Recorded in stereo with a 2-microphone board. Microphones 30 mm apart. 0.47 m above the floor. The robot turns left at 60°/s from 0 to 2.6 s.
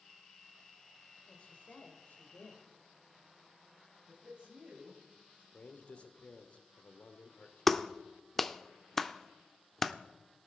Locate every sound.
1.3 s a woman speaking: 150° left, 2.5 m; by 2.7 s 70° left, 2.5 m
4.1 s a man speaking: 25° right (ahead or behind), 2.5 m
5.5 s a man speaking: 40° left (ahead or behind), 1.4 m
7.7 s a clap: 10° left (ahead or behind), 0.7 m